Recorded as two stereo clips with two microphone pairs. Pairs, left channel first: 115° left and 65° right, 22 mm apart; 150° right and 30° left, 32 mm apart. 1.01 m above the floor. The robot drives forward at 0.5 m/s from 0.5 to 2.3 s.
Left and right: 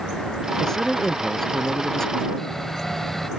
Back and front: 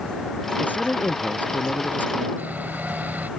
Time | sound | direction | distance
0.6 | a man speaking | 175° right | ?
2.4 | sawing | 45° left | ?